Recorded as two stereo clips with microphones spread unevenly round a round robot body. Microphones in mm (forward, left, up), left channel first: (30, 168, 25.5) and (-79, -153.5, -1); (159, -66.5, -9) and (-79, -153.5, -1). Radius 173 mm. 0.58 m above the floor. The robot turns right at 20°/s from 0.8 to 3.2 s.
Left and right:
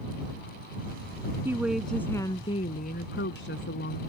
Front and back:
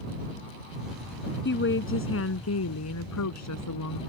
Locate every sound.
1.4 s a woman speaking: 25° right; by 4.0 s 10° left